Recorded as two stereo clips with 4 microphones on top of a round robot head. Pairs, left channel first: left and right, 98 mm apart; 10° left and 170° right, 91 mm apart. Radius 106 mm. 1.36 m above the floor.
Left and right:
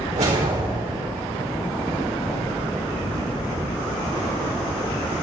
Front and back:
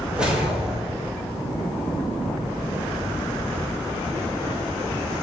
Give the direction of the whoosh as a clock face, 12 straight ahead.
3 o'clock.